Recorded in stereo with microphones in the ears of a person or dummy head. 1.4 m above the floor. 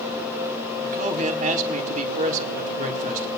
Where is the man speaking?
45° right (ahead or behind), 1.6 m.